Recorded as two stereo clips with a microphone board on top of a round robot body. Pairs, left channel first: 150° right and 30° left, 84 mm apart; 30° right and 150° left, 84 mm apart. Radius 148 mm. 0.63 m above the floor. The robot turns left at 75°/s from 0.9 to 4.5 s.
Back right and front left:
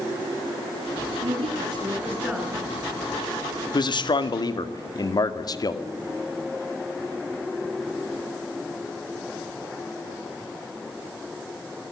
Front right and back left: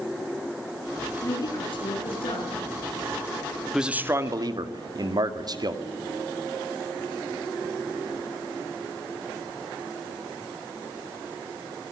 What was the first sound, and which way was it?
A woman speaking, 35° left.